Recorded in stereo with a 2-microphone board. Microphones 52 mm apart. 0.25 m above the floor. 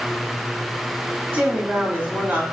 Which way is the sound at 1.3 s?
45° right (ahead or behind).